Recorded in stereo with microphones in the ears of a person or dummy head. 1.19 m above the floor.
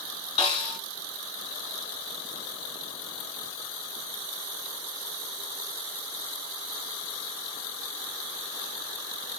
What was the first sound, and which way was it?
A snare drum, 30° left (ahead or behind).